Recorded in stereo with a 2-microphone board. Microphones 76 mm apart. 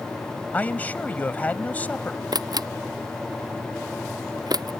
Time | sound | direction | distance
0.5 | a man speaking | 20° left (ahead or behind) | ?
2.3 | a camera shutter | 60° right (ahead or behind) | ?